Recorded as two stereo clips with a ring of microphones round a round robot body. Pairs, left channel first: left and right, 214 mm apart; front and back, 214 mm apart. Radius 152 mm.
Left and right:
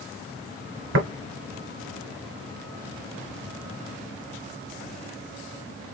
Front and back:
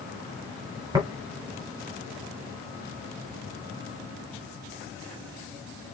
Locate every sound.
0.9 s tapping: 105° right, 1.7 m